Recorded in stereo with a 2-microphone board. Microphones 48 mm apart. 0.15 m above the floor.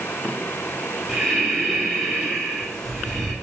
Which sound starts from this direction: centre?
Breathing, at 1.1 s.